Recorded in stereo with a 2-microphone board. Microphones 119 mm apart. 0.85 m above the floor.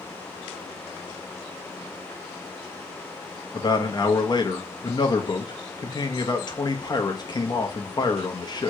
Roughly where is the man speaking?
Left.